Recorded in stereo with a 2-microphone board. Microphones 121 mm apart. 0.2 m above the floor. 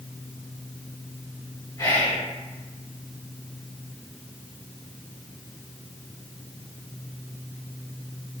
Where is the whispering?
30° left (ahead or behind), 1.8 m.